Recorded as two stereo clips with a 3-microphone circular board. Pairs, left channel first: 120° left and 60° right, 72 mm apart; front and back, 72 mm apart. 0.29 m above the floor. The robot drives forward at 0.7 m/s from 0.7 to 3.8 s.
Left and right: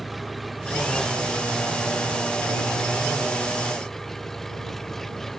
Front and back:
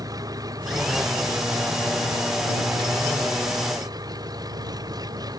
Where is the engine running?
150° right; by 5.4 s 155° right.